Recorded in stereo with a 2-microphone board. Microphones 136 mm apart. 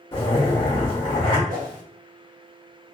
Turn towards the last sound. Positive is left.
turn(degrees=-80)